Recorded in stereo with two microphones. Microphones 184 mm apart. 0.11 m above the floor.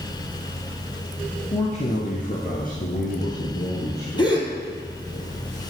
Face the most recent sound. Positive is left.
turn(degrees=25)  # may be behind; listen again after turning